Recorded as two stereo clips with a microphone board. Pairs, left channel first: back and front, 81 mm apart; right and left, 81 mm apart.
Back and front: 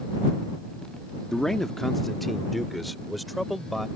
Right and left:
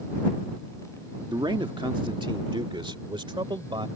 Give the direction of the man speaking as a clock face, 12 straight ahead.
9 o'clock.